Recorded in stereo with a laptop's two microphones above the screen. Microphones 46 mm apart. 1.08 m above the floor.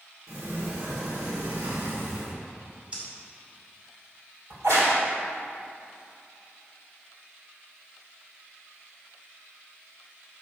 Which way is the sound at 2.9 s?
25° right (ahead or behind).